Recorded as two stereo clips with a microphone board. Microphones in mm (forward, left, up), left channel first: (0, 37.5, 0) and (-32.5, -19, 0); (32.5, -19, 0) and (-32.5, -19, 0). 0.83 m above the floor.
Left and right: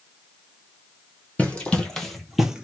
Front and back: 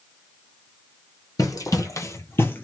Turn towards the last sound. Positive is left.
turn(degrees=-50)